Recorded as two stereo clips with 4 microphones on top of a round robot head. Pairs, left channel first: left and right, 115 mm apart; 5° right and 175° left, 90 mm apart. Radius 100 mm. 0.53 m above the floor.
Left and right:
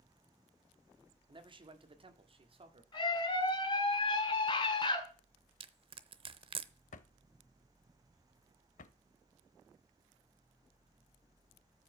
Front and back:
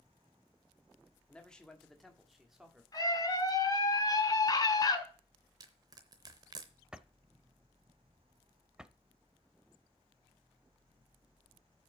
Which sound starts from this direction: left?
A drawer, at 6.9 s.